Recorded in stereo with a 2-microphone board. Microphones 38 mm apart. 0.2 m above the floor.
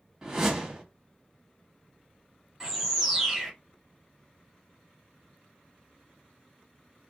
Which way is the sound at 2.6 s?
5° right (ahead or behind).